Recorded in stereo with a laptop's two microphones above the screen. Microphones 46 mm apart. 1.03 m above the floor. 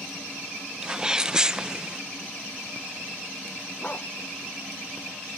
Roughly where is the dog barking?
Left.